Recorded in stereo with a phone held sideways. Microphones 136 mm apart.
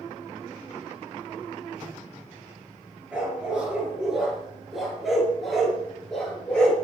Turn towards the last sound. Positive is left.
turn(degrees=5)  # may be behind; listen again after turning